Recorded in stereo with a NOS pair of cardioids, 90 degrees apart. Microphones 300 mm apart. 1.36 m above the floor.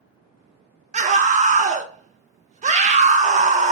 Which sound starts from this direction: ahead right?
A scream, at 0.9 s.